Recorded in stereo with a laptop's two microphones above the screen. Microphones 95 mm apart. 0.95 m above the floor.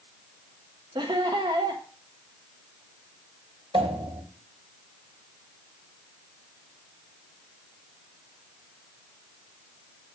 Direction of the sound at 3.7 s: 80° right.